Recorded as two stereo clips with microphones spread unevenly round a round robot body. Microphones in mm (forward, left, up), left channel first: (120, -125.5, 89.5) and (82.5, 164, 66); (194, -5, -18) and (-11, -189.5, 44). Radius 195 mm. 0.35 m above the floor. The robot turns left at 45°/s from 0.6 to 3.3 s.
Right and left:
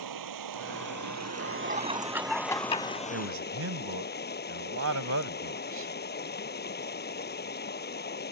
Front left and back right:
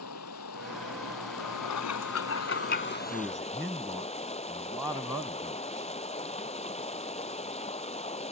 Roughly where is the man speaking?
Behind left.